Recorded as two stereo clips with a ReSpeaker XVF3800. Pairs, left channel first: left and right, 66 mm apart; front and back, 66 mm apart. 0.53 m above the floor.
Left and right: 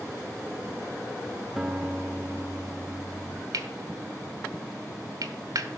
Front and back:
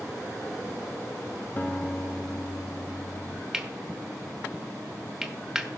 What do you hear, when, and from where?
1.6 s a guitar: 10° right, 0.8 m
3.5 s cutlery clinking: 95° right, 1.0 m